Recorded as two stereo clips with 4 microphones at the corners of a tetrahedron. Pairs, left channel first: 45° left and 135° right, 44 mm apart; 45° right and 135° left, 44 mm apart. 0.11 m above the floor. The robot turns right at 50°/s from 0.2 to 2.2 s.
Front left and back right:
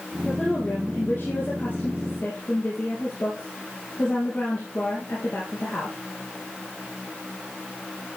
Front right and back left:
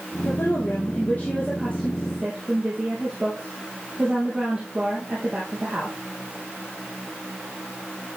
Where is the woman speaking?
40° right, 3.5 m; by 6.0 s 60° left, 3.5 m.